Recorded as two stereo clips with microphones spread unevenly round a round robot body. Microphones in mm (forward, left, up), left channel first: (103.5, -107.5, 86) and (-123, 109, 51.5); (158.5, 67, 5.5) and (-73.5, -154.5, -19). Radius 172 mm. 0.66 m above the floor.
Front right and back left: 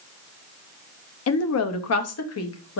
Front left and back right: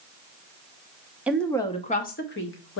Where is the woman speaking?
60° right, 0.7 m; by 2.8 s straight ahead, 1.1 m.